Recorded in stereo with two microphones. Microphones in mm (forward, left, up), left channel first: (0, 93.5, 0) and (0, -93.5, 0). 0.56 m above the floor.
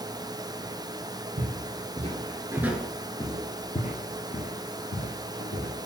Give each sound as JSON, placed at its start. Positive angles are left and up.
{"t": 1.4, "sound": "footsteps", "side_deg": -45, "distance_m": 0.9}